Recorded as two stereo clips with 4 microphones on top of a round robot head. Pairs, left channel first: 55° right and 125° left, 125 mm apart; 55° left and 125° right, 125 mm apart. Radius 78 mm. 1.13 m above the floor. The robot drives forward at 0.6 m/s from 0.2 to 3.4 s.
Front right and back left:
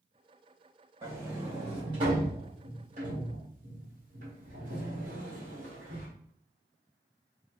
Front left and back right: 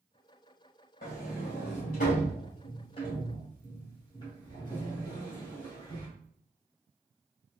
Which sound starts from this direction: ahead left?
A sliding door, at 1.0 s.